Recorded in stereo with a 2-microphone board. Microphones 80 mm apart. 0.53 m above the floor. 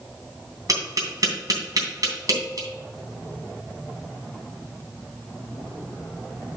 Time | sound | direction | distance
0.7 | tapping | 50° right (ahead or behind) | 3 m